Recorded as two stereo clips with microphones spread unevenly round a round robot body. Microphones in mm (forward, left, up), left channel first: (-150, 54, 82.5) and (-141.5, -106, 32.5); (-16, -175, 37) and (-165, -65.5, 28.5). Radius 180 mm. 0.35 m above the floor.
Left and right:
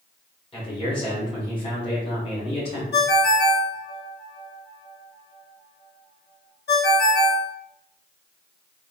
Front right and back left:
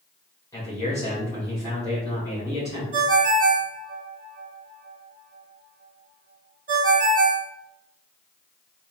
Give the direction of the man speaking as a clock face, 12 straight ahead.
11 o'clock.